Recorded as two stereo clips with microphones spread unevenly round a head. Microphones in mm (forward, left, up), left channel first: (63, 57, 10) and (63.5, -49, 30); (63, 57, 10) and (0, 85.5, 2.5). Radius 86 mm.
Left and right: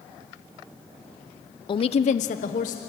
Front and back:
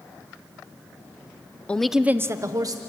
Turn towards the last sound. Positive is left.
turn(degrees=125)